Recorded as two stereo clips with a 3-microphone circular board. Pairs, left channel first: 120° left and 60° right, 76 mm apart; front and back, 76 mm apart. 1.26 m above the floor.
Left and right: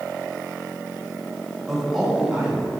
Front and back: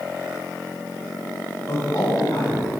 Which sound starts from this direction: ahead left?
A man speaking, at 1.7 s.